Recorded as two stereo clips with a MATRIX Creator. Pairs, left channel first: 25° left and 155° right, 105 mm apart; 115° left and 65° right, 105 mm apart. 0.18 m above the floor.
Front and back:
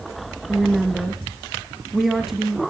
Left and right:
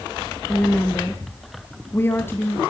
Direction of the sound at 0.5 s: 120° left.